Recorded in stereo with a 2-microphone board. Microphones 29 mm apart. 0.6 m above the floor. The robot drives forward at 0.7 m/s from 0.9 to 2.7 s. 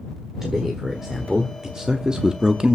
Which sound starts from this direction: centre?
A man speaking, at 0.4 s.